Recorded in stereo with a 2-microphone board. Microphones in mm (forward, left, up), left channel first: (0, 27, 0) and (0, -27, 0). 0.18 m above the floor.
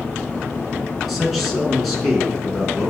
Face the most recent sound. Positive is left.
turn(degrees=0)  # may be behind; listen again after turning